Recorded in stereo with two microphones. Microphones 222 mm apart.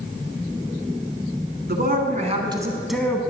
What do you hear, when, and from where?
1.7 s a man speaking: 45° right (ahead or behind), 1.5 m; by 3.2 s 10° left (ahead or behind), 1.2 m